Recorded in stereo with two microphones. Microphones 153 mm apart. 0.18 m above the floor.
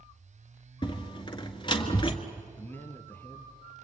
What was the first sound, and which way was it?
A door slam, 30° left (ahead or behind).